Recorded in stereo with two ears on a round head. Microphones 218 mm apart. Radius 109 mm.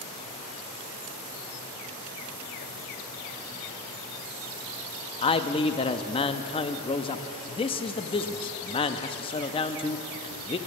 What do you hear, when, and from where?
5.2 s a man speaking: 20° left (ahead or behind), 0.5 m